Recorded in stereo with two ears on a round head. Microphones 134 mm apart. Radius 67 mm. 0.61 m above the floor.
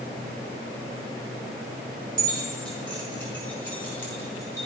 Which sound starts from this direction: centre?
Keys jangling, at 2.2 s.